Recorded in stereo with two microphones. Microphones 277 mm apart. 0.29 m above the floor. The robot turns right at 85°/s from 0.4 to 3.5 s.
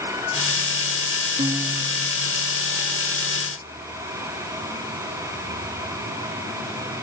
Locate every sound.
1.4 s a guitar: 25° right, 0.7 m; by 2.4 s 60° left, 0.7 m